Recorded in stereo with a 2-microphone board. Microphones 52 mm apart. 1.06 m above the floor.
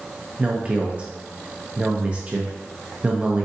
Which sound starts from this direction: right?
A man speaking, at 0.4 s.